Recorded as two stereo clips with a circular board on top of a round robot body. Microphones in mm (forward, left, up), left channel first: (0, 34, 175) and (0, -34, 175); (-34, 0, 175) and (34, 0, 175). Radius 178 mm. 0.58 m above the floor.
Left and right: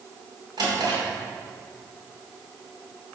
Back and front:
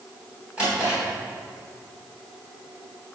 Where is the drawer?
75° right, 3 m.